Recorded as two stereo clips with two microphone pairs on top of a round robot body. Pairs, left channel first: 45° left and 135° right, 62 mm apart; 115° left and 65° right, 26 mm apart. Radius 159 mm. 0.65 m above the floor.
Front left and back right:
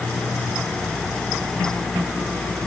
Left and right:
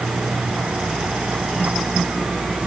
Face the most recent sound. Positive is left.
No sound to turn to.